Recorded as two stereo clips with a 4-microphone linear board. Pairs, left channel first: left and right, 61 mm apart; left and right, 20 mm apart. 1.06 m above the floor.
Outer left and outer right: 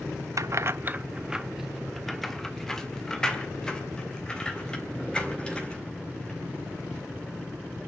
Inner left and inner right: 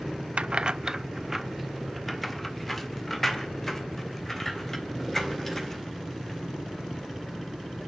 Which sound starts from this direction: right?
Keys jangling, at 0.4 s.